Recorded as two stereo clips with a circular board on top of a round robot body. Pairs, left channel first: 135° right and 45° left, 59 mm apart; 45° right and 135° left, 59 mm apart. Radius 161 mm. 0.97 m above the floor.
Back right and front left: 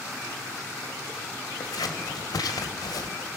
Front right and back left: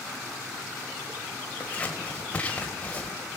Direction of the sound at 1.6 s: 115° right.